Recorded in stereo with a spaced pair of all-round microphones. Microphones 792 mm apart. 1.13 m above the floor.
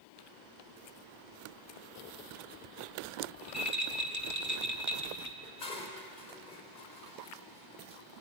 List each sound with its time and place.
3.4 s a rattle: 20° right (ahead or behind), 1.9 m
5.4 s dishes clattering: 70° left (ahead or behind), 3.5 m